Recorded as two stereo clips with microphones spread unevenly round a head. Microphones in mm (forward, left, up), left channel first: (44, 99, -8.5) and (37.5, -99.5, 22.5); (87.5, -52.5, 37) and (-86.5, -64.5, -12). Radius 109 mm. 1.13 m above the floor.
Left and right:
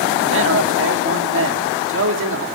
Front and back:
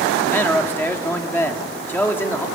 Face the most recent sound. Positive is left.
turn(degrees=-75)